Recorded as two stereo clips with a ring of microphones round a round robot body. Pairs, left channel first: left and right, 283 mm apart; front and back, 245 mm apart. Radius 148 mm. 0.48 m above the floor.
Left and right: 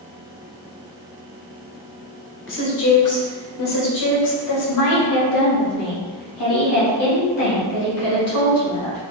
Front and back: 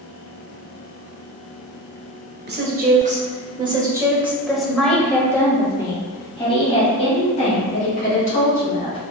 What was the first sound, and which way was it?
A woman speaking, 135° left.